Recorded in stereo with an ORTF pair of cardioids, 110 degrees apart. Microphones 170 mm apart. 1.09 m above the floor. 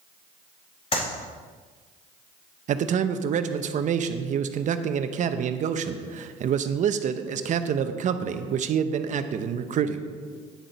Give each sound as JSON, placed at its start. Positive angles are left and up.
{"t": 0.9, "sound": "a clap", "azimuth_deg": 40, "distance_m": 4.0}
{"t": 2.7, "sound": "a man speaking", "azimuth_deg": -50, "distance_m": 0.8}